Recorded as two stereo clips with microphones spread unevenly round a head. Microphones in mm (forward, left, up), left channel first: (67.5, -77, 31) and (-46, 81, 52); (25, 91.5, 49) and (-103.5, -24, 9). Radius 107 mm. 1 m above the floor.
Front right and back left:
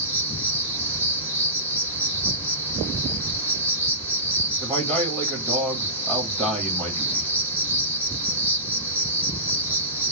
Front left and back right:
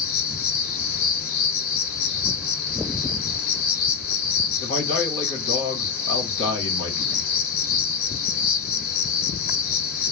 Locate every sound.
0.0 s an insect: 45° left, 0.7 m
4.6 s a man speaking: 45° left, 1.4 m